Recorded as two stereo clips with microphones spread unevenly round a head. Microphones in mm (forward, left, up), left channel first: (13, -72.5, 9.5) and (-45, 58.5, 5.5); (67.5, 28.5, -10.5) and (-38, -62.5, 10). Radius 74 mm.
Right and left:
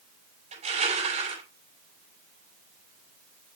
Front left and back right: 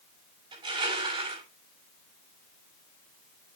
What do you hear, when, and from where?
0.5 s crushing: 160° left, 6 m